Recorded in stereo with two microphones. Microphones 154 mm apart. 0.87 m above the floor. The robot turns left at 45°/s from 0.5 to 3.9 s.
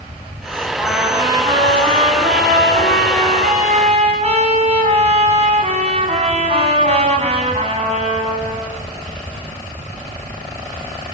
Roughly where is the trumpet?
Ahead.